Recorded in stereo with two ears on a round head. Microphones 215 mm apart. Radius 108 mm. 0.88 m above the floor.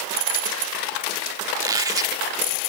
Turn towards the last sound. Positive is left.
turn(degrees=-15)  # may be behind; listen again after turning